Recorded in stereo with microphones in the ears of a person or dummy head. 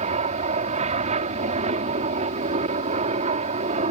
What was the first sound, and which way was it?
An aircraft, 35° right (ahead or behind).